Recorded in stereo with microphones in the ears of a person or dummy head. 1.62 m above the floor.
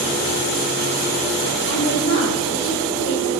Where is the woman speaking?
75° left (ahead or behind), 5 m.